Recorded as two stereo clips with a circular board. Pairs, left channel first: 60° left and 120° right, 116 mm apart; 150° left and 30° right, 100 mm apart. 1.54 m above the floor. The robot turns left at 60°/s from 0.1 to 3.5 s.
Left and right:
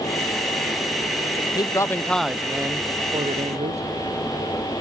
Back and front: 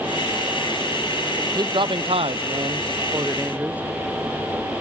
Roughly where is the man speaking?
Ahead.